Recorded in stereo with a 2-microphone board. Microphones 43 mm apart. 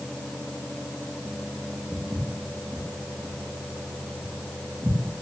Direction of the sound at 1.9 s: 30° right (ahead or behind).